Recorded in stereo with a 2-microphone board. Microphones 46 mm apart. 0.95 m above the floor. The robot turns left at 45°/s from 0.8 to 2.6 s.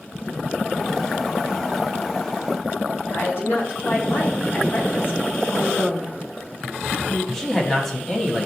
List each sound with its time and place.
3.1 s a woman speaking: 60° left (ahead or behind), 1.8 m
5.5 s a woman speaking: 65° left (ahead or behind), 1.1 m
7.3 s a man speaking: 10° left (ahead or behind), 1.4 m